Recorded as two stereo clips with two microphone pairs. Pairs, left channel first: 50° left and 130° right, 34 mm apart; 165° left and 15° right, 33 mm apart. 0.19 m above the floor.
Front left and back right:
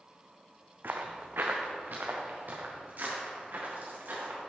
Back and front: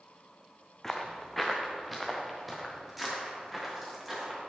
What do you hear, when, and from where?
0.8 s footsteps: 115° right, 0.8 m; by 4.4 s 100° right, 2.5 m